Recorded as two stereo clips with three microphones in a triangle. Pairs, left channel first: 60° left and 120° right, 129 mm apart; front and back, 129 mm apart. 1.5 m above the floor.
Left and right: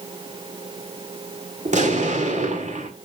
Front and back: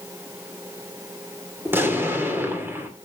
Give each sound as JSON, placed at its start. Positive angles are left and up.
{"t": 1.6, "sound": "an explosion", "azimuth_deg": -105, "distance_m": 2.5}